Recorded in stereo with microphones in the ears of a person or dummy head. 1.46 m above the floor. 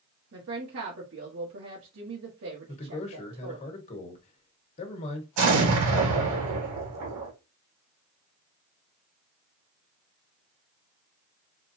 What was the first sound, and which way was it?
A woman speaking, 65° right (ahead or behind).